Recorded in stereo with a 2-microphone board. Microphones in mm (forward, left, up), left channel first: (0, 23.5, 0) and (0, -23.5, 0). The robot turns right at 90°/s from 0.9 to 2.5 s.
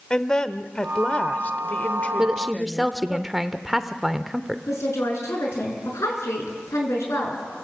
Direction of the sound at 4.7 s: 75° left (ahead or behind).